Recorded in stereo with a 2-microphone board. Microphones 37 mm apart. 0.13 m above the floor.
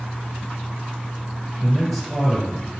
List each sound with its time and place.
1.6 s a man speaking: 15° right (ahead or behind), 1.9 m